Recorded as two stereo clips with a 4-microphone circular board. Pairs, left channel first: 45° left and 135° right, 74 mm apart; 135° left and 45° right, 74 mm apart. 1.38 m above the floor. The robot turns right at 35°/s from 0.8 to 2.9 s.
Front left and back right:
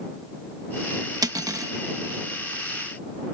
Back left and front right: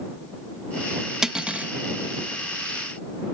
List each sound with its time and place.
1.2 s cutlery clinking: 125° right; by 1.7 s 110° right